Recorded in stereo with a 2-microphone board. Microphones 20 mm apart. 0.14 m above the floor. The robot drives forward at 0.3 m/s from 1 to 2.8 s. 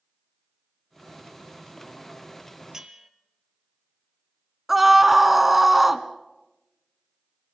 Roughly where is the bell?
Right.